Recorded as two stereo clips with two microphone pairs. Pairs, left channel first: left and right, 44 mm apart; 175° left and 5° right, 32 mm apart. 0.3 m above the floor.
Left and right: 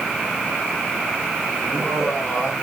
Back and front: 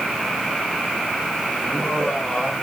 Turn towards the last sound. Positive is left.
turn(degrees=90)